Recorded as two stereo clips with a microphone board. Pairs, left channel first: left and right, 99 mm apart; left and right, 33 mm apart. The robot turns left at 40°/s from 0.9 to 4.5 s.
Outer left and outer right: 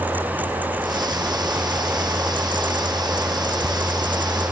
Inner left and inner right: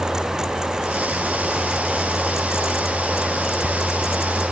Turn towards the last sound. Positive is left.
No sound to turn to.